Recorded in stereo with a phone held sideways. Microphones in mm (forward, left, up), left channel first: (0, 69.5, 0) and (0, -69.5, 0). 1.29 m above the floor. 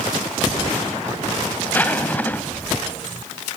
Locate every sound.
1.7 s a zipper: 15° left (ahead or behind), 1.1 m